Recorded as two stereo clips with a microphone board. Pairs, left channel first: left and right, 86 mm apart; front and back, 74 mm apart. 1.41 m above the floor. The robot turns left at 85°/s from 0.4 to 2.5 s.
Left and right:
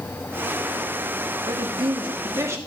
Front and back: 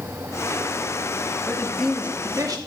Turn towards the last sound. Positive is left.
turn(degrees=-145)